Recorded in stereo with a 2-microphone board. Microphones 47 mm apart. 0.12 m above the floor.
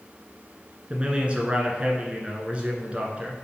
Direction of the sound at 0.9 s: 25° right (ahead or behind).